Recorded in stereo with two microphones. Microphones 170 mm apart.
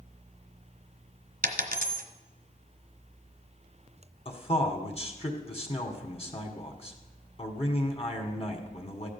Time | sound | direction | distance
1.4 | a dropped coin | 60° right (ahead or behind) | 1.1 m
4.2 | a man speaking | 40° left (ahead or behind) | 1.6 m